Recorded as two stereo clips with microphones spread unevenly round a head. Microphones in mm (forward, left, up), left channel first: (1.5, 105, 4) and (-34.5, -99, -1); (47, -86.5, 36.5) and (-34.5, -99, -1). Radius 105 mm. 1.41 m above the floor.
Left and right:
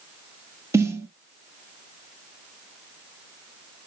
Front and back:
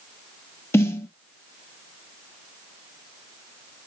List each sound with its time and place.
0.7 s a snare drum: 25° right, 1.0 m